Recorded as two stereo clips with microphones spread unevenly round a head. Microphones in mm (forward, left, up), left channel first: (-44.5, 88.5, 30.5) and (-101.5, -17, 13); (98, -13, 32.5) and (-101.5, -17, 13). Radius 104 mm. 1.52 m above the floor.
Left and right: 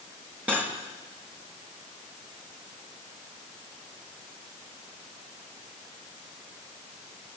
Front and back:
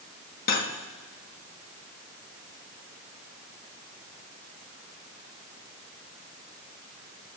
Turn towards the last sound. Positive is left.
turn(degrees=-30)